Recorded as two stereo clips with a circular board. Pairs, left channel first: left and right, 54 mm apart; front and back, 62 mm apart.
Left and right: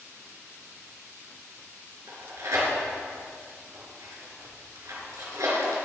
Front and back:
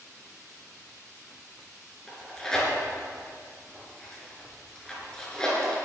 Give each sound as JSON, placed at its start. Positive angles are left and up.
{"t": 2.1, "sound": "tearing paper", "azimuth_deg": -80, "distance_m": 4.0}